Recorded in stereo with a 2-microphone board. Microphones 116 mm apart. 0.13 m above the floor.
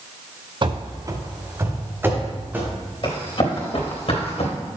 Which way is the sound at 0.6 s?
45° right (ahead or behind).